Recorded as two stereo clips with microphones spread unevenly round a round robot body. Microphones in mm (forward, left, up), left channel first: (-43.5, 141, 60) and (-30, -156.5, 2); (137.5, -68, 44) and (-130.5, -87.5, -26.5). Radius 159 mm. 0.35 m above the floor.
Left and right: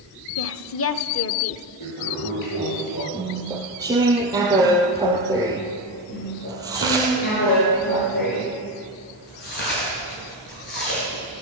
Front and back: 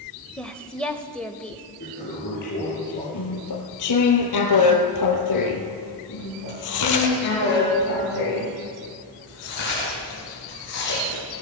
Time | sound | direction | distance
0.4 | a woman speaking | 110° left | 1.0 m
1.8 | a toilet flushing | 65° left | 9.5 m
3.1 | chewing | 10° right | 2.5 m
6.1 | chewing | 30° left | 8 m